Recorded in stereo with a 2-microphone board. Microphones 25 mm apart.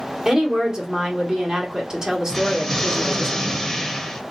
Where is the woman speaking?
25° right (ahead or behind), 1.7 m.